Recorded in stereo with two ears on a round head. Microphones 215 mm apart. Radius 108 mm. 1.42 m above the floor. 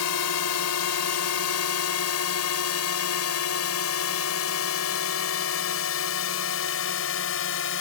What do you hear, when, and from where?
0.0 s a drone: 70° left (ahead or behind); by 7.8 s 50° left (ahead or behind)